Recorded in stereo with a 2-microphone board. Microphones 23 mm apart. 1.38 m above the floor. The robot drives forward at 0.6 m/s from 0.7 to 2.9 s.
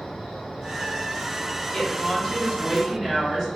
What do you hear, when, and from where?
0.0 s an insect: 45° left (ahead or behind), 1.1 m; by 3.6 s 20° left (ahead or behind), 2 m
1.7 s a woman speaking: 30° left (ahead or behind), 0.6 m; by 3.5 s 15° left (ahead or behind), 1.3 m